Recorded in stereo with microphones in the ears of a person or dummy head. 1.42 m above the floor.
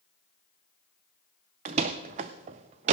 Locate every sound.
1.6 s a door slam: 25° right (ahead or behind), 0.5 m